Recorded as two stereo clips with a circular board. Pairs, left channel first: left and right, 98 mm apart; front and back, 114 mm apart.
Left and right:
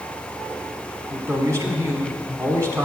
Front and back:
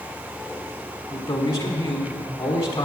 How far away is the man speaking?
About 1.5 m.